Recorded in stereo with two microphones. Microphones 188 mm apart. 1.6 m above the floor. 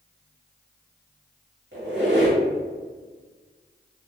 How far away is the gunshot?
I don't hear a gunshot.